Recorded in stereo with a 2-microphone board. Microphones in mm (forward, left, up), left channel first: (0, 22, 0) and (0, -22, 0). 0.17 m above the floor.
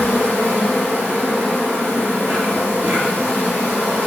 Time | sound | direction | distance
0.0 | an insect | 65° right (ahead or behind) | 1.2 m